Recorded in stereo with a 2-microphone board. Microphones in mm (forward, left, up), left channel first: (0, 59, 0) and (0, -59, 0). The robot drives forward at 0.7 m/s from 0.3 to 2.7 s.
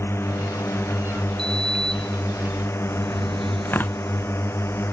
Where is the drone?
20° left (ahead or behind).